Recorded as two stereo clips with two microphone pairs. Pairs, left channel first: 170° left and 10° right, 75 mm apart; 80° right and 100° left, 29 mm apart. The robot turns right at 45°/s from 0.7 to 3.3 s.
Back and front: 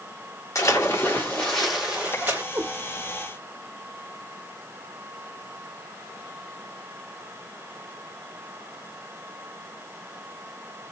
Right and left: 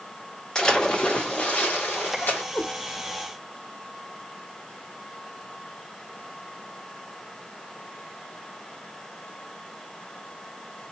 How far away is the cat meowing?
About 1.9 m.